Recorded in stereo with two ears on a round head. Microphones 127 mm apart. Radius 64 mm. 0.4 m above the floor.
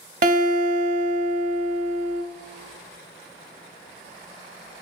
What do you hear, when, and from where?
0.2 s a guitar: 60° right (ahead or behind), 0.6 m